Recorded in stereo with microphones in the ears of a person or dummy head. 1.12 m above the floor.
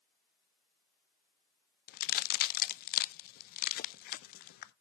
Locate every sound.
1.9 s a crack: 55° left (ahead or behind), 0.5 m